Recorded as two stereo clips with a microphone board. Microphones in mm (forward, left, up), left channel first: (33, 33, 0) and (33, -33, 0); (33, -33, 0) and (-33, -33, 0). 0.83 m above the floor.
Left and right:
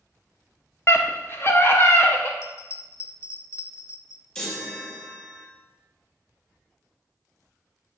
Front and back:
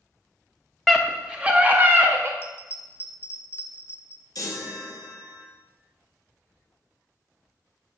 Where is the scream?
95° left, 0.8 m; by 2.3 s 140° left, 1.3 m.